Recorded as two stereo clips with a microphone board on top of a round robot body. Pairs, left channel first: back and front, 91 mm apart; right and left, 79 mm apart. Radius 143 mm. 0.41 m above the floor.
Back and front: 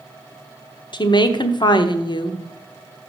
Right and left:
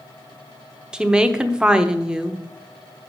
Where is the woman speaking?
170° left, 1.2 m.